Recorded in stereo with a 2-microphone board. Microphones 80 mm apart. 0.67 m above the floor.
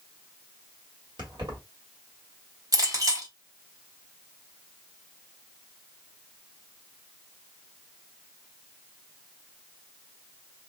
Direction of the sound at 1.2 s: 75° right (ahead or behind).